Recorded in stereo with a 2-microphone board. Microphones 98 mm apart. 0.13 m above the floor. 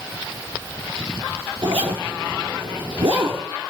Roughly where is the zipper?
Right.